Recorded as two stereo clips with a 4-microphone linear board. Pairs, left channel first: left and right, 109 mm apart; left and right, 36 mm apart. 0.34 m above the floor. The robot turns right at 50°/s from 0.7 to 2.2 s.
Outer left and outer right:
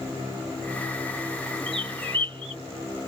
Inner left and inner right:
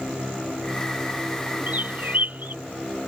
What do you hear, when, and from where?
1.7 s a bird: 55° right (ahead or behind)